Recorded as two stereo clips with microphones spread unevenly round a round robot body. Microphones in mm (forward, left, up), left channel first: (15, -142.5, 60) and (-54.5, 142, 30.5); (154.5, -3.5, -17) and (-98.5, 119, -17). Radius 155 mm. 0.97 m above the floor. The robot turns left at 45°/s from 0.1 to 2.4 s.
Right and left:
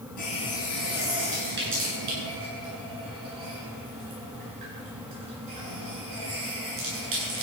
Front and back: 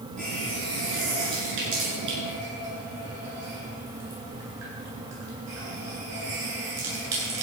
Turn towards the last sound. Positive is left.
turn(degrees=125)